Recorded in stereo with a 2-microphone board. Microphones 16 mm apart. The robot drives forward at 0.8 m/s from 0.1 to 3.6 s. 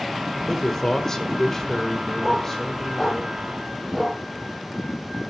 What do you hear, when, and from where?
0.5 s a man speaking: 25° left (ahead or behind), 1.3 m; by 3.2 s 15° left (ahead or behind), 2 m
2.2 s a dog barking: centre (ahead or behind), 7 m; by 4.2 s 5° left (ahead or behind), 6 m